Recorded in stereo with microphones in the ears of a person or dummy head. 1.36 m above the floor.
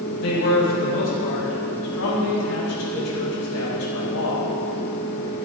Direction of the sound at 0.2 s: 75° left (ahead or behind).